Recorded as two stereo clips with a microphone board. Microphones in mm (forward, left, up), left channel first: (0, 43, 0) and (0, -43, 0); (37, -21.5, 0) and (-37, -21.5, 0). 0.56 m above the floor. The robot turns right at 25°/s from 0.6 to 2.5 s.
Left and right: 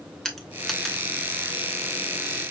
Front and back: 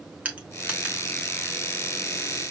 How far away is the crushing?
About 1.0 m.